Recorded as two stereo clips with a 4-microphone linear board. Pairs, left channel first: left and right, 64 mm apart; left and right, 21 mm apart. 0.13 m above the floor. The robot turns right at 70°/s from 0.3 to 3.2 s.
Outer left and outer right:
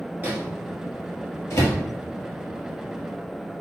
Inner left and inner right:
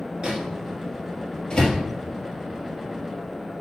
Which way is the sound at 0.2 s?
30° right (ahead or behind).